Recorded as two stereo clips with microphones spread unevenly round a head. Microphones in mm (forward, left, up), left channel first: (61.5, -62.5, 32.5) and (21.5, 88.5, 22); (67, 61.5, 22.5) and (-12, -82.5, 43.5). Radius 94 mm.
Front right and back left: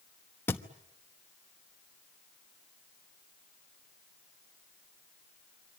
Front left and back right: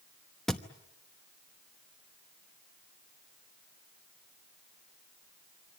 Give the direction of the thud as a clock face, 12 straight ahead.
1 o'clock.